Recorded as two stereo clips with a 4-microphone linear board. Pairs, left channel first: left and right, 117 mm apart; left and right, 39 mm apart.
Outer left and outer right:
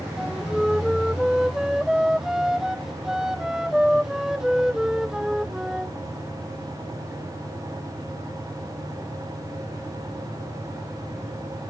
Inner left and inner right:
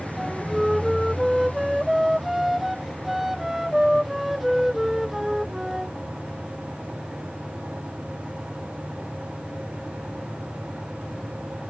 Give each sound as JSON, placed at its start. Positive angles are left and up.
{"t": 0.2, "sound": "a flute", "side_deg": -5}